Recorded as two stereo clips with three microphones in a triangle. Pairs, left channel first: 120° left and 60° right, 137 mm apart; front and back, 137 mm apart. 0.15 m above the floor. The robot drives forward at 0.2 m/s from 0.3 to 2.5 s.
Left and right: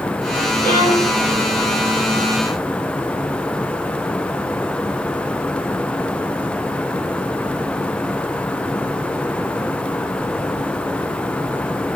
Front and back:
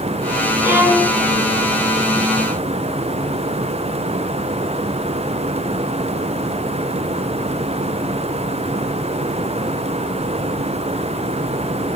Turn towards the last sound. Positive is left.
turn(degrees=120)